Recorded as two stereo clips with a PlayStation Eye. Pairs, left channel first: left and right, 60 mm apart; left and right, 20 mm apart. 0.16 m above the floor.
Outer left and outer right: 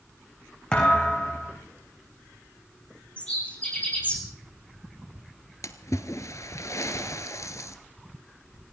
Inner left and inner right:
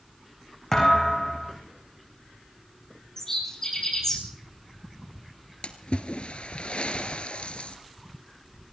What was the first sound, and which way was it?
A thud, 15° left (ahead or behind).